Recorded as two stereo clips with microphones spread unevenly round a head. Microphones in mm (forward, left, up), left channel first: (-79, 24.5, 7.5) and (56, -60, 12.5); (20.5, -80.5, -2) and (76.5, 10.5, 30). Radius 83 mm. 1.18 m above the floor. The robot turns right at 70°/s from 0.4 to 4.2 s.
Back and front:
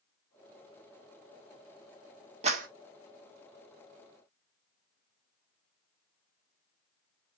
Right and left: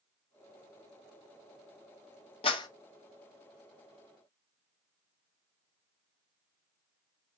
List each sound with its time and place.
2.4 s a clap: 85° right, 1.4 m; by 2.7 s 65° right, 1.4 m